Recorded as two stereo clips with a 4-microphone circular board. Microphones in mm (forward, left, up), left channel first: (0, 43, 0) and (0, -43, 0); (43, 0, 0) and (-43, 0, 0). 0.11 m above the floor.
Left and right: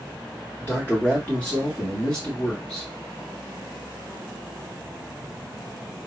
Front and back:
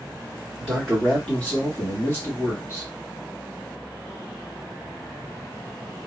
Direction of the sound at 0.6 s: 95° left.